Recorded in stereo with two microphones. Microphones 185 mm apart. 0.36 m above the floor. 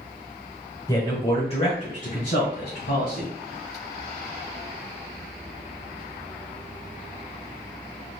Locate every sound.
0.9 s a man speaking: 20° left (ahead or behind), 1.1 m; by 3.3 s 60° left (ahead or behind), 1.9 m